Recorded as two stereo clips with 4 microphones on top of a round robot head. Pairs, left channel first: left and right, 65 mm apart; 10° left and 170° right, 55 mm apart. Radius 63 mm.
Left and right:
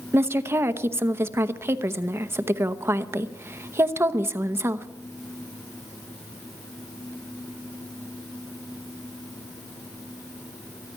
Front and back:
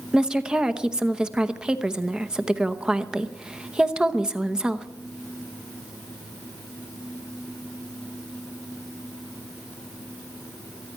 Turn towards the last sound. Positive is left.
turn(degrees=-100)